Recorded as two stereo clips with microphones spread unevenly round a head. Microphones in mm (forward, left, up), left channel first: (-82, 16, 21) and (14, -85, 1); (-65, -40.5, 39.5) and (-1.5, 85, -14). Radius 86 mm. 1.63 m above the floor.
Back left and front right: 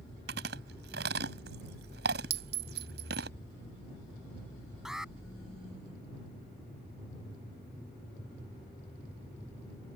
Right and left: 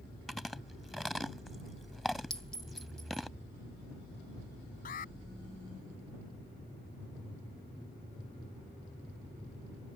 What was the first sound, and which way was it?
Chewing, 35° right.